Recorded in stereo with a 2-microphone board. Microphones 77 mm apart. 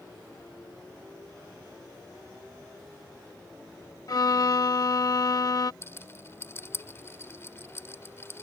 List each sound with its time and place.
4.1 s a violin: 50° left (ahead or behind)
5.8 s a rattle: 35° left (ahead or behind)